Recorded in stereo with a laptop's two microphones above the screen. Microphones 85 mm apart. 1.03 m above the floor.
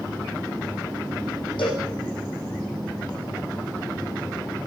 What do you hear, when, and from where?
1.6 s a cowbell: 80° left, 6 m